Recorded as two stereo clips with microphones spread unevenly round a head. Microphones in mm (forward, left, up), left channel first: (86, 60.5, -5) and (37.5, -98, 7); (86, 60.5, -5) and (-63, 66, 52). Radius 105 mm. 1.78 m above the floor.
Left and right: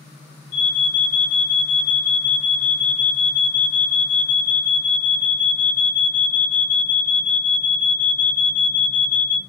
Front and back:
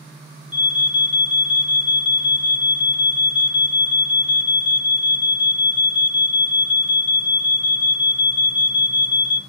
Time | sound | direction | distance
0.5 | an alarm | 65° left | 1.4 m